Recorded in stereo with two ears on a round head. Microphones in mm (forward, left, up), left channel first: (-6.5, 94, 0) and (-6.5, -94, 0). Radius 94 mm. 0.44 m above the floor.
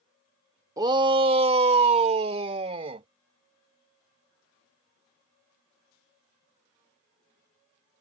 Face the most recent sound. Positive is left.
turn(degrees=-25)  # may be behind; listen again after turning